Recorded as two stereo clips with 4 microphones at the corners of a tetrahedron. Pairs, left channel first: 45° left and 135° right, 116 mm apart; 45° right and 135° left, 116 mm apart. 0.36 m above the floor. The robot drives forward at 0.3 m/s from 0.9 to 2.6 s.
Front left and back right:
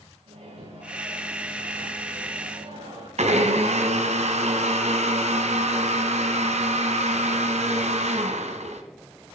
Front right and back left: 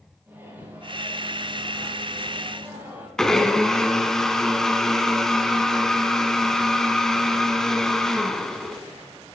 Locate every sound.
0.3 s a microwave: 155° right, 8.5 m
3.2 s a blender: 130° right, 1.6 m